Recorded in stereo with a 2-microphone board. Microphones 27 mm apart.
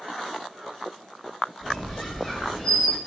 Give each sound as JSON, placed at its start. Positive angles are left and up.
{"t": 1.6, "sound": "a squeak", "side_deg": 0, "distance_m": 1.1}